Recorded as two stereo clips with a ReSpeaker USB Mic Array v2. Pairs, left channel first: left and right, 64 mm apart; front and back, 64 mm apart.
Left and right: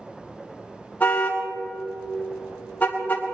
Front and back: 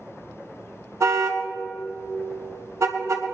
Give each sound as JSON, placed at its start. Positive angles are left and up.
{"t": 1.0, "sound": "a car horn", "azimuth_deg": 150, "distance_m": 2.5}